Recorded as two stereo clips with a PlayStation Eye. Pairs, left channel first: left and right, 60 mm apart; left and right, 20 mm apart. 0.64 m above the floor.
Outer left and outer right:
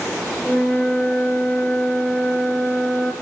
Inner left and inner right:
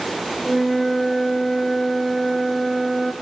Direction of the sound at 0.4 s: 20° left (ahead or behind).